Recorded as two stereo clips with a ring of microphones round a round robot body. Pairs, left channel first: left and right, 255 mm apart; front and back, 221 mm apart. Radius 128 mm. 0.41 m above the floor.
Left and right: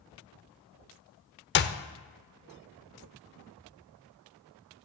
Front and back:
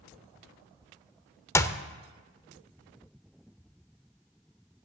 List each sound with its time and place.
1.6 s a clap: 70° left, 0.7 m